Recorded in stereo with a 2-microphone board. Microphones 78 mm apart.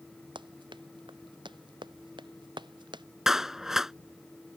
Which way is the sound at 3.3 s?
5° right (ahead or behind).